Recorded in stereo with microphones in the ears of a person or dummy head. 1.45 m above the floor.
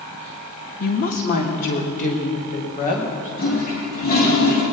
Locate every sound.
0.8 s a woman speaking: 45° left (ahead or behind), 1.4 m; by 3.3 s 50° left (ahead or behind), 5 m
3.4 s a toilet flushing: 55° left (ahead or behind), 3.5 m